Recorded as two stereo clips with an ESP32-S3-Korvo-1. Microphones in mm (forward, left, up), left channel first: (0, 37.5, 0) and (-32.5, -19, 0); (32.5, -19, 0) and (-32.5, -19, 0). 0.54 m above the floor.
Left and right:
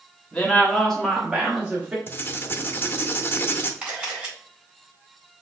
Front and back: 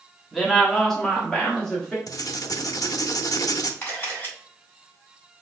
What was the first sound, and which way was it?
A woman speaking, 90° left.